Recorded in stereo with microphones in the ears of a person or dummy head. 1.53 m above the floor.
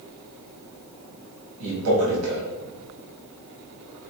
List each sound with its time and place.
1.6 s a man speaking: 60° right (ahead or behind), 2.5 m